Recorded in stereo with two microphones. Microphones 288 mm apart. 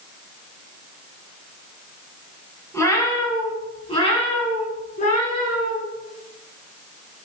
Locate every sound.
2.7 s a cat meowing: 10° left (ahead or behind), 4.5 m; by 5.8 s 30° left (ahead or behind), 6 m